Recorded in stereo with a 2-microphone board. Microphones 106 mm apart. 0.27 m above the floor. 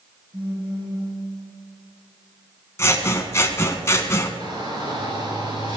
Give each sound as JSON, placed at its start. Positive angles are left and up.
{"t": 0.3, "sound": "a phone buzzing", "side_deg": -70, "distance_m": 5.0}
{"t": 2.8, "sound": "scissors", "side_deg": 25, "distance_m": 1.0}
{"t": 4.4, "sound": "a shout", "side_deg": -45, "distance_m": 4.0}